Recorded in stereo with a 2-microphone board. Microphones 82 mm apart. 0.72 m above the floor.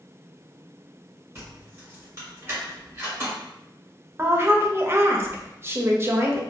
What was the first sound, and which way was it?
Keys jangling, 25° right (ahead or behind).